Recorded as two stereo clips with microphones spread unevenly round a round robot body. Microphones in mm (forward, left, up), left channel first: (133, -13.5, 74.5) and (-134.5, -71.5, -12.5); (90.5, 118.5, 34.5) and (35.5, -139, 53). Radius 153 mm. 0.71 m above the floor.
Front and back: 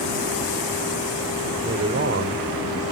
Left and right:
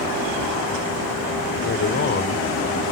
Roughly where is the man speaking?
Behind left.